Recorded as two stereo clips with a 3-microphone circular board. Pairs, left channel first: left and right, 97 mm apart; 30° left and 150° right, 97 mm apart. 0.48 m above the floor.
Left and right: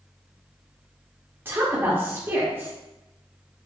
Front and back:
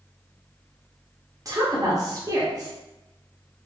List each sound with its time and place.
1.4 s a woman speaking: 145° right, 0.9 m